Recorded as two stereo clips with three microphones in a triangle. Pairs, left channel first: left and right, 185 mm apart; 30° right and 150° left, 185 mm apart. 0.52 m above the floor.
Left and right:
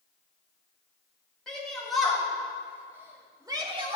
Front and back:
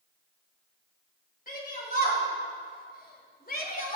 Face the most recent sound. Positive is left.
turn(degrees=-45)